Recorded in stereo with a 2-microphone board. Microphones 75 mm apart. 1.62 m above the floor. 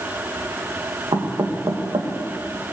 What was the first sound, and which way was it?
Knocking, 75° right (ahead or behind).